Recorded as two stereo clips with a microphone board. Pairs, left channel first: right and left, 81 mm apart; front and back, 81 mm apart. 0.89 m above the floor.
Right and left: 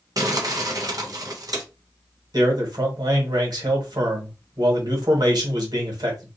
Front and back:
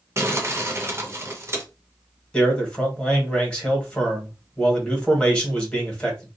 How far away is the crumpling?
About 0.7 m.